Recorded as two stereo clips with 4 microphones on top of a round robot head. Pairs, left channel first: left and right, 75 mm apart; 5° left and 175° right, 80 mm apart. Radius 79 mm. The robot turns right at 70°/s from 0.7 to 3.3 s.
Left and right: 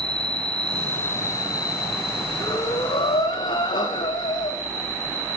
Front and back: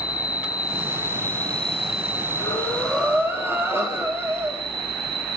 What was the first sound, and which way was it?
An insect, 15° left.